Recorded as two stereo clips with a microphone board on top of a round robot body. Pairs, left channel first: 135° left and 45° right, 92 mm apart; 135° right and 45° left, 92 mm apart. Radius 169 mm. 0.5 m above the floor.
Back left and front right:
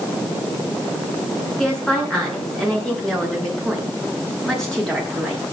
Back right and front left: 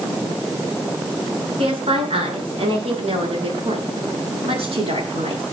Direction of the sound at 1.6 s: 50° left.